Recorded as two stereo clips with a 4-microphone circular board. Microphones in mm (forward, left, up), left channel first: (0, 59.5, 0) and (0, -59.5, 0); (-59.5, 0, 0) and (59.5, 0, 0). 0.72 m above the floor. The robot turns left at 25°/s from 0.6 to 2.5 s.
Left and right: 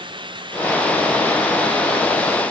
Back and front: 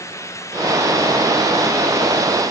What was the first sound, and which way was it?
Only background noise.